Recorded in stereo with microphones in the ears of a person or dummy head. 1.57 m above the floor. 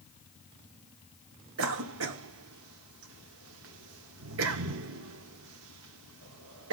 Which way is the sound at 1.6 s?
70° right (ahead or behind).